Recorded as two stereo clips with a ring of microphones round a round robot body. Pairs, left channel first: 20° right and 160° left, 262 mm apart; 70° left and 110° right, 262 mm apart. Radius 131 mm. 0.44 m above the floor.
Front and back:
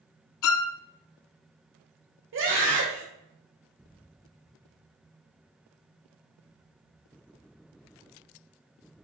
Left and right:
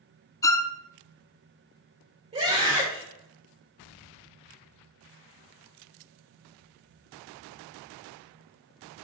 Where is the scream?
175° right, 1.9 m.